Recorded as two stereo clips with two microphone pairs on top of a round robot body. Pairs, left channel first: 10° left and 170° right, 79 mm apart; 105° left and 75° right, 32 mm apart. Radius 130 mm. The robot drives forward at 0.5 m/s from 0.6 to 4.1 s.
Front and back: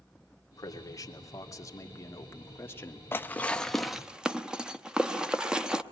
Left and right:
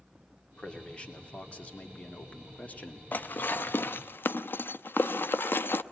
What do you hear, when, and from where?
0.5 s a man speaking: 45° left, 3 m; by 3.0 s 70° left, 2.5 m
3.1 s dishes clattering: 70° left, 0.8 m; by 5.8 s 110° left, 0.7 m